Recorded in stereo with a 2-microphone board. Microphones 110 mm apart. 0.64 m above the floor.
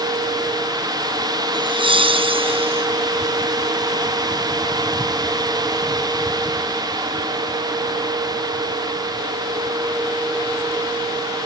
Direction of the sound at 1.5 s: 50° right (ahead or behind).